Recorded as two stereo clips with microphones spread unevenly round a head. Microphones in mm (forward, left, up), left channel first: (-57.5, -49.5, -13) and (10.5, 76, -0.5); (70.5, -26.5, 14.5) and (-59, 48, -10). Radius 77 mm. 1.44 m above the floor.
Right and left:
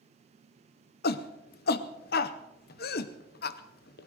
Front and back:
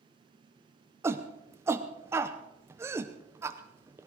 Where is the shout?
135° right, 0.7 m.